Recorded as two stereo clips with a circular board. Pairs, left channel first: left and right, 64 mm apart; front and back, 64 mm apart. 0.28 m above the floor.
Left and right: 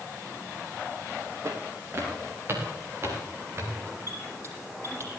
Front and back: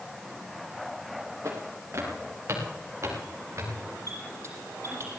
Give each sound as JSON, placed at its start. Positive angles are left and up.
{"t": 1.4, "sound": "footsteps", "azimuth_deg": -135, "distance_m": 7.0}
{"t": 4.1, "sound": "a squeak", "azimuth_deg": -135, "distance_m": 8.0}